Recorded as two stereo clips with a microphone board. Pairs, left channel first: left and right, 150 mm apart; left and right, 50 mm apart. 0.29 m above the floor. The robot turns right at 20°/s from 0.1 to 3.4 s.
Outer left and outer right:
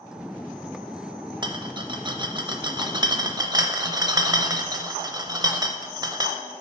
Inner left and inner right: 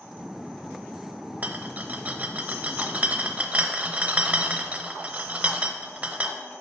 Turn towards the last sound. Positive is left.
turn(degrees=-25)  # may be behind; listen again after turning